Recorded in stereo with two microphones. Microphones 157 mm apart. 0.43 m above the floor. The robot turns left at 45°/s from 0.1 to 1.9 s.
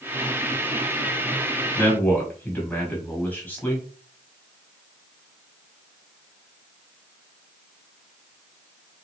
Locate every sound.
1.8 s a man speaking: 15° left (ahead or behind), 1.4 m; by 3.9 s 10° left (ahead or behind), 1.4 m